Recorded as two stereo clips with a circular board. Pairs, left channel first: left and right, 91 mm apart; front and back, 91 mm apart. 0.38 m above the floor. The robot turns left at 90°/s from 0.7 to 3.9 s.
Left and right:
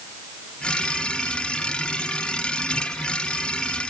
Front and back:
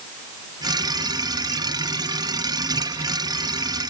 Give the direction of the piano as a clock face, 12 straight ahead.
I don't hear a piano.